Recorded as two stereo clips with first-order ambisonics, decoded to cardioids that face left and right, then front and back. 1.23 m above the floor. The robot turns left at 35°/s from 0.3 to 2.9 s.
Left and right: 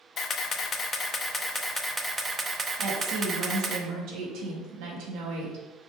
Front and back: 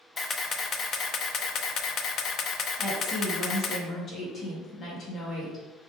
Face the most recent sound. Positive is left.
turn(degrees=-65)